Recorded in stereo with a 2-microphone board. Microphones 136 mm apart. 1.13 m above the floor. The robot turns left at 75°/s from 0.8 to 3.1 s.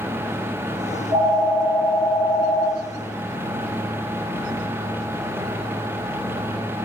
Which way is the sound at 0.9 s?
120° right.